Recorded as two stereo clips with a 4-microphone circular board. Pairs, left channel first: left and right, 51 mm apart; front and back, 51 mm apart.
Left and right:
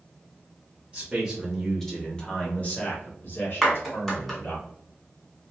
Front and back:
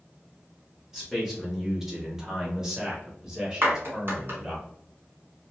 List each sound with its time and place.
0.9 s a man speaking: 100° right, 0.9 m; by 4.6 s 100° left, 1.7 m
3.6 s a clap: 175° left, 1.7 m